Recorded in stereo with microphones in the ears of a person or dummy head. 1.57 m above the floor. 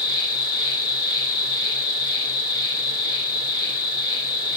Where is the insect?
30° left (ahead or behind), 1.4 m.